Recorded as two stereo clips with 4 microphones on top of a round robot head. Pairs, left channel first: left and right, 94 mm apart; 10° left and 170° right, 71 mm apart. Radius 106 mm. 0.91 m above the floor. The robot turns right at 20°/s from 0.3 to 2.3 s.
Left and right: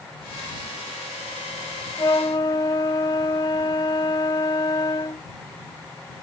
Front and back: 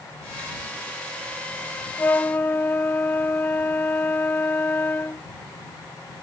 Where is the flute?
55° left; by 5.3 s 60° left.